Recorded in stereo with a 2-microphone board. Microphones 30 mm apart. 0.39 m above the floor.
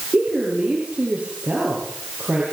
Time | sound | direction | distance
0.1 | a woman speaking | 40° right (ahead or behind) | 7.5 m